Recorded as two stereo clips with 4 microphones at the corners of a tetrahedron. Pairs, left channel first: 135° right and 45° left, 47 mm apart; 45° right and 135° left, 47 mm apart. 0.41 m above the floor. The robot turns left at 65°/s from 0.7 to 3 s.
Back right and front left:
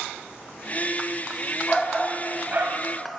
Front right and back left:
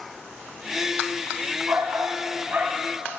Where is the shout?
145° left, 2.5 m; by 2.8 s 70° left, 2.5 m.